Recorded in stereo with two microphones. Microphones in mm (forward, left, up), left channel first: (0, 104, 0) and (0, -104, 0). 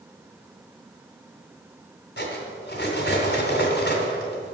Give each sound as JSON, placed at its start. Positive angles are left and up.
{"t": 2.2, "sound": "cutlery clinking", "side_deg": 55, "distance_m": 2.0}